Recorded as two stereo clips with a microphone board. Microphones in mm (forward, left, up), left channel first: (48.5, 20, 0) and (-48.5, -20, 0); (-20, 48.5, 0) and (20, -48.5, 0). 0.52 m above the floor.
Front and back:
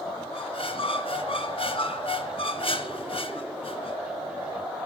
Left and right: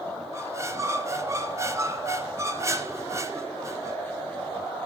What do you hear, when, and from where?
0.3 s a squeak: 5° right, 1.7 m